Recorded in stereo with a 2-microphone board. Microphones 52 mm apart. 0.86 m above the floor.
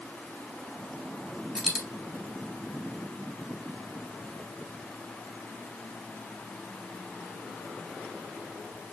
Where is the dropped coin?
10° right (ahead or behind), 1.9 m.